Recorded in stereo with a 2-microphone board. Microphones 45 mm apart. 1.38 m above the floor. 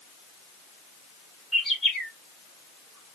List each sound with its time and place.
1.5 s a bird: centre (ahead or behind), 1.9 m